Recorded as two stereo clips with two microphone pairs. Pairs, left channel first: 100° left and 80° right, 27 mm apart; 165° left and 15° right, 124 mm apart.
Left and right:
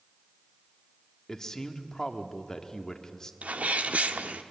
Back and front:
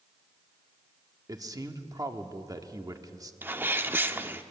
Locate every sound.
1.3 s a man speaking: 40° left, 1.3 m
3.4 s a sneeze: 85° right, 1.1 m